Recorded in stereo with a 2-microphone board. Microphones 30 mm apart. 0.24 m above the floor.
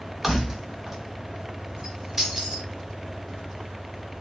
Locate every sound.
0.2 s keys jangling: 10° right (ahead or behind), 0.8 m; by 2.7 s 20° right (ahead or behind), 0.9 m